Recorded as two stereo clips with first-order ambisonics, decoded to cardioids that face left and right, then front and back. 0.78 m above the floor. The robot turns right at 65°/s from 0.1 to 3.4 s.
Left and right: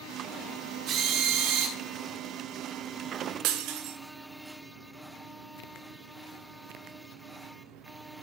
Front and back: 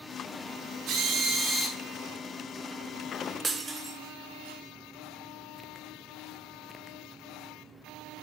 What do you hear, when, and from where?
0.9 s a drill: 135° right, 2 m; by 1.8 s 75° right, 2 m
3.4 s breaking glass: 110° right, 0.7 m